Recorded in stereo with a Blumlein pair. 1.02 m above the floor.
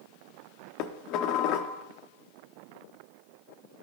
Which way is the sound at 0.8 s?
40° left.